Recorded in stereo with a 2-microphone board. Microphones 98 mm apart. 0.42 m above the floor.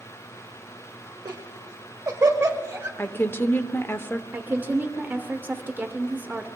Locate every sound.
1.2 s laughter: 45° right (ahead or behind), 1.6 m; by 2.9 s 20° right (ahead or behind), 2.0 m
3.0 s a woman speaking: 25° left (ahead or behind), 0.8 m
4.3 s a woman speaking: 20° right (ahead or behind), 1.1 m